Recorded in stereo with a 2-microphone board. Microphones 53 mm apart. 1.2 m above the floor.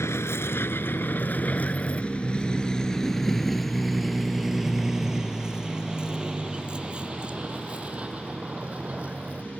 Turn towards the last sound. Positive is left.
turn(degrees=-30)  # may be behind; listen again after turning